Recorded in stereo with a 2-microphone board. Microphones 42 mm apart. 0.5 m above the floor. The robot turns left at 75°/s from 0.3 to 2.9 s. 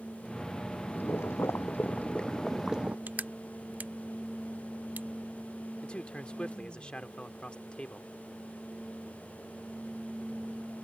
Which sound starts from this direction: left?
A man speaking, at 5.8 s.